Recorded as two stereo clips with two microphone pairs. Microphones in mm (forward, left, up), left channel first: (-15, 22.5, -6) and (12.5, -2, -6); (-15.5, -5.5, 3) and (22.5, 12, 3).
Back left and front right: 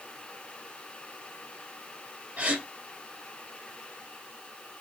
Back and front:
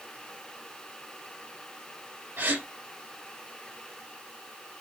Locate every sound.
2.4 s a gasp: 10° left, 2.5 m